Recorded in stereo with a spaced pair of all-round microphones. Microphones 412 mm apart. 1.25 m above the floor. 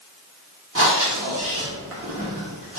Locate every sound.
0.8 s breathing: 35° right (ahead or behind), 0.9 m